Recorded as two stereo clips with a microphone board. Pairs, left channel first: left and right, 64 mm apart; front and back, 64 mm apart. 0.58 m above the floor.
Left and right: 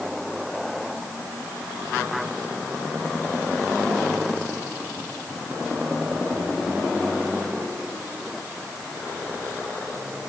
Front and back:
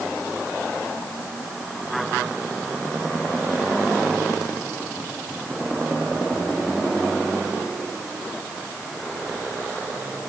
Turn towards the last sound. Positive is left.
No sound to turn to.